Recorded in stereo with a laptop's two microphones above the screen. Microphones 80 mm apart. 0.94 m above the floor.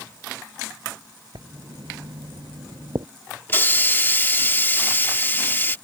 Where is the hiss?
30° left (ahead or behind).